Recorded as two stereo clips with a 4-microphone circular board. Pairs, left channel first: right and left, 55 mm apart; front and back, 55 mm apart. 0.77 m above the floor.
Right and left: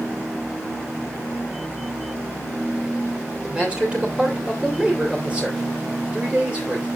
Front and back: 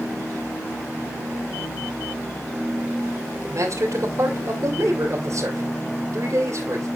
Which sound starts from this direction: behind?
A man speaking, at 3.4 s.